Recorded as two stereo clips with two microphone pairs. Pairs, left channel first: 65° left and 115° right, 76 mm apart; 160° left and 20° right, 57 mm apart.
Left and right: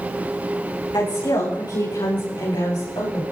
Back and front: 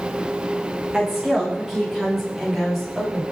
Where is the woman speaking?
60° left, 10 m; by 3.2 s 70° left, 11 m.